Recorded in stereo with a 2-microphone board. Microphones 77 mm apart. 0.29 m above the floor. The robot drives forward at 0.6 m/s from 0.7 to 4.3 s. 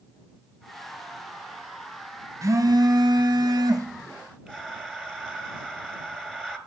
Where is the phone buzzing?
40° right (ahead or behind), 0.7 m; by 3.9 s 45° right (ahead or behind), 0.7 m.